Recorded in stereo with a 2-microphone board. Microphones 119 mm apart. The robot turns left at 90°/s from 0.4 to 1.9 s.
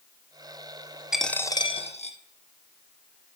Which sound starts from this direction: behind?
A dropped coin, at 1.1 s.